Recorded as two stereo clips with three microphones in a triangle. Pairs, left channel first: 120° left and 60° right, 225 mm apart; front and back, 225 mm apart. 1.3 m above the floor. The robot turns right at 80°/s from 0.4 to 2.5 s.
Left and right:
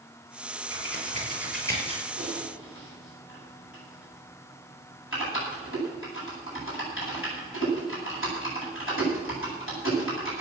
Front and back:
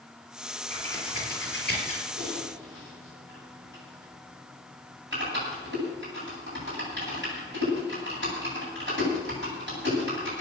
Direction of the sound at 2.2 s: 115° left.